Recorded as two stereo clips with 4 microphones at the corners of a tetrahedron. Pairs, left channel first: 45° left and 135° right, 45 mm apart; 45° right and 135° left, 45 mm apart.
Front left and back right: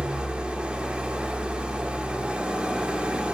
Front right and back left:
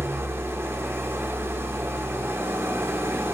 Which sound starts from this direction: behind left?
An engine running, at 0.0 s.